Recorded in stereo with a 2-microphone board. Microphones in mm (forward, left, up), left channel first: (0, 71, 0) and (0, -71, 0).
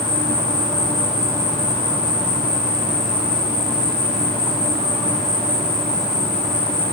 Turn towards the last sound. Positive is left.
turn(degrees=-80)